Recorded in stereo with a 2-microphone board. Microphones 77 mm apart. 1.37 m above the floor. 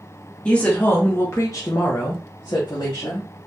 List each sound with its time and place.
0.5 s a woman speaking: 10° left (ahead or behind), 0.9 m; by 3.3 s 75° left (ahead or behind), 1.1 m